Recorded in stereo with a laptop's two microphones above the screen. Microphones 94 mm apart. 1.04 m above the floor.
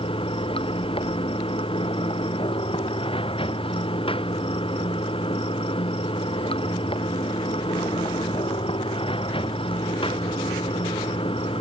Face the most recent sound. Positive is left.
turn(degrees=65)  # may be behind; listen again after turning